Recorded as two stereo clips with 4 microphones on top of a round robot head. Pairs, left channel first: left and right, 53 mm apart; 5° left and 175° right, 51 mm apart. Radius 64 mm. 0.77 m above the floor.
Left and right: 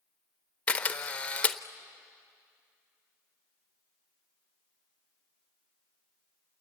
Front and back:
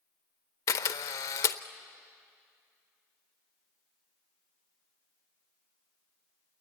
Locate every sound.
0.7 s a camera shutter: 20° left, 0.7 m